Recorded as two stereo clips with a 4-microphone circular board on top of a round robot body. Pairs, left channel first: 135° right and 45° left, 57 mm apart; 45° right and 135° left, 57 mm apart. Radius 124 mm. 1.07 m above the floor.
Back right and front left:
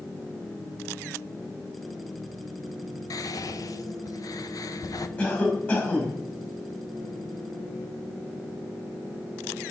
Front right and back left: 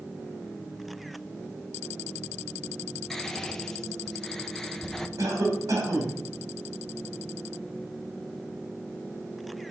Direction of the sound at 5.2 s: 165° left.